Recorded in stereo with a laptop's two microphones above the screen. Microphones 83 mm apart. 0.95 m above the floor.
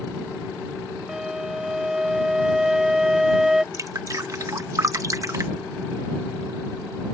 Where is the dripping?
40° right (ahead or behind).